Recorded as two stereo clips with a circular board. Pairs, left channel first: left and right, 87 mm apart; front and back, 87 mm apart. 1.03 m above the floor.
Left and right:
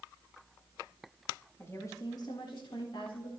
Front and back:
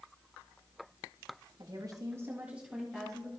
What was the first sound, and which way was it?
A woman speaking, 150° left.